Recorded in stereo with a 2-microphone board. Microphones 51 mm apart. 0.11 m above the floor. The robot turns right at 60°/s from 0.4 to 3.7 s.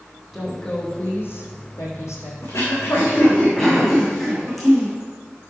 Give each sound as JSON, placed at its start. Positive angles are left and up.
{"t": 0.3, "sound": "a woman speaking", "azimuth_deg": 0, "distance_m": 5.0}
{"t": 2.4, "sound": "throat clearing", "azimuth_deg": 100, "distance_m": 5.0}